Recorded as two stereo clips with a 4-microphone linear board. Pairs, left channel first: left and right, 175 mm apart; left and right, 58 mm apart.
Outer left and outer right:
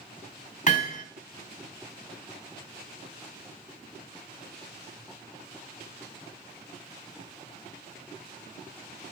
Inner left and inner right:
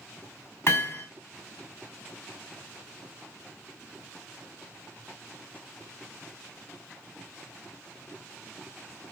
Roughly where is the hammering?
Left.